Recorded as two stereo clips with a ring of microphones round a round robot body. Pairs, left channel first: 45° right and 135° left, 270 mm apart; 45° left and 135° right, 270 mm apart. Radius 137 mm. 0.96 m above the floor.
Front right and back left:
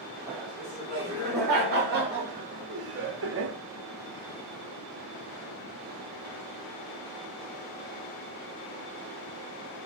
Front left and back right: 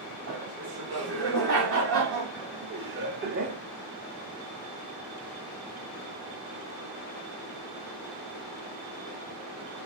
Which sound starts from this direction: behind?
Laughter, at 0.3 s.